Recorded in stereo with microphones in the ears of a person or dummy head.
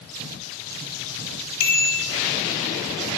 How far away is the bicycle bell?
About 3 m.